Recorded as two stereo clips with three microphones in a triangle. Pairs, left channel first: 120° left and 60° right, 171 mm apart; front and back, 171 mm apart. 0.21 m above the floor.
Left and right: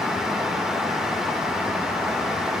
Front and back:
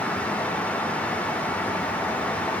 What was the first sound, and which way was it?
Only background noise.